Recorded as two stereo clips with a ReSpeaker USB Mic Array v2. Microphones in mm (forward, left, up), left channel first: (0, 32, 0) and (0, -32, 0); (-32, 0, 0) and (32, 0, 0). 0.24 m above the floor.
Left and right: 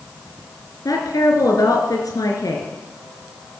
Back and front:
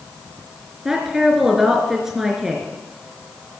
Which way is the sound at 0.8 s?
85° left.